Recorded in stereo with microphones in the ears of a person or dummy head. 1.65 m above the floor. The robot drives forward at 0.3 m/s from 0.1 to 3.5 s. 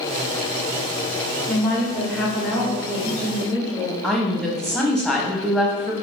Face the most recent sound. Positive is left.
turn(degrees=5)  # may be behind; listen again after turning